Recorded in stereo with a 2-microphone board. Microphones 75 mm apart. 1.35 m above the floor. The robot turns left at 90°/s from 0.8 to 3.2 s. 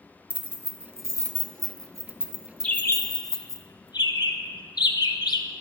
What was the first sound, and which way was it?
Keys jangling, 20° right (ahead or behind).